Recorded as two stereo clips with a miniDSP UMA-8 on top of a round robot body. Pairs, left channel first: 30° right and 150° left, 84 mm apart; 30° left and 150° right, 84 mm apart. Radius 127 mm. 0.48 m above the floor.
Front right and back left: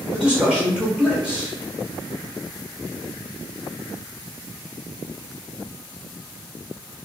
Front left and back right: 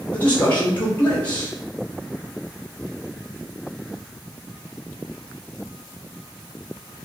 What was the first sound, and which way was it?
A man speaking, 80° left.